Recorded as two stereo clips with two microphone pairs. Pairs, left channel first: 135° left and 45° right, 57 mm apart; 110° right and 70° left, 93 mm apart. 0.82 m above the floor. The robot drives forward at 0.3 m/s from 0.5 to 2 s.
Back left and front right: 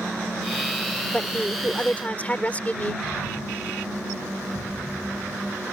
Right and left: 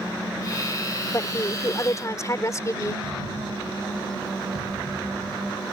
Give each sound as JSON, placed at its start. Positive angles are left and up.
{"t": 1.1, "sound": "a woman speaking", "azimuth_deg": -165}
{"t": 3.0, "sound": "an explosion", "azimuth_deg": 70}